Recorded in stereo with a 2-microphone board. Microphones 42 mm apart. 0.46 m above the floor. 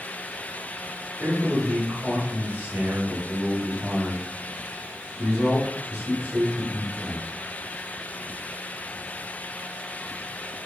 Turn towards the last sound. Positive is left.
turn(degrees=-40)  # may be behind; listen again after turning